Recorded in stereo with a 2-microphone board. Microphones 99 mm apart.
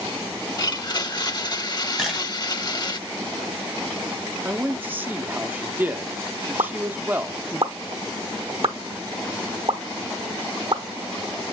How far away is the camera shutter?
About 4 m.